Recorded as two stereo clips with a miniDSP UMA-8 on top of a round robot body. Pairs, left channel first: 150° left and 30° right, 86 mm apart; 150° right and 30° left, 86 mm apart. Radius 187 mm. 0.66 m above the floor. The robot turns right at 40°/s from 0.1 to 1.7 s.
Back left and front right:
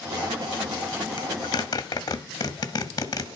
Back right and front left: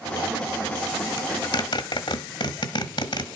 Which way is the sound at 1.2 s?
175° left.